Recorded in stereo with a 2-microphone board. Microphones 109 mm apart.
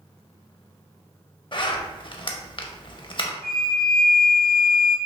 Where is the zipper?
45° left (ahead or behind), 0.5 m.